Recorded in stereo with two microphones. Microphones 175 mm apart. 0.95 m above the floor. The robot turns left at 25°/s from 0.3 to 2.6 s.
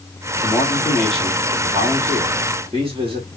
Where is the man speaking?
20° left, 2.0 m; by 3.3 s 35° right, 2.0 m.